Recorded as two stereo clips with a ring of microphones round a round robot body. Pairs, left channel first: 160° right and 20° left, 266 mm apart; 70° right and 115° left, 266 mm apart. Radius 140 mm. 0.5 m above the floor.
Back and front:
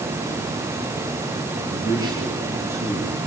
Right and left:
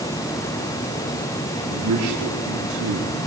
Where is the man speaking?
95° left, 7.5 m; by 3.3 s 110° left, 6.5 m.